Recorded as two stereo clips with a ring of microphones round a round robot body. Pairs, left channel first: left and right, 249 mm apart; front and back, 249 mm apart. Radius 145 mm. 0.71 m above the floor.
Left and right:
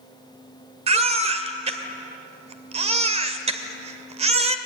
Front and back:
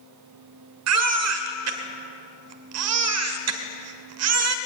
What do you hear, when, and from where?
0.9 s a baby crying: 155° right, 1.6 m